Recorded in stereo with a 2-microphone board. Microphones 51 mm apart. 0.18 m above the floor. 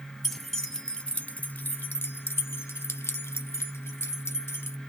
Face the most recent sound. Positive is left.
turn(degrees=55)  # may be behind; listen again after turning